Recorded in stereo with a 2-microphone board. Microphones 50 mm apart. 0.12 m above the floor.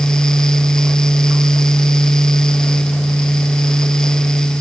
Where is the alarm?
I don't hear an alarm.